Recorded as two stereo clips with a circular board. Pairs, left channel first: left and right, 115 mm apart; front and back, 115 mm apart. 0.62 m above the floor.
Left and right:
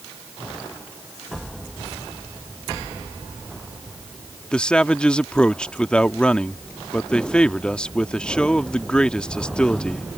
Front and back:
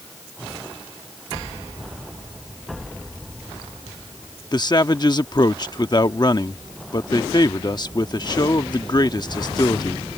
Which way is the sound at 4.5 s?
15° left.